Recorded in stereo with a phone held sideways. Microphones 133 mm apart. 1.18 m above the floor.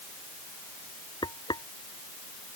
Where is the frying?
35° left (ahead or behind).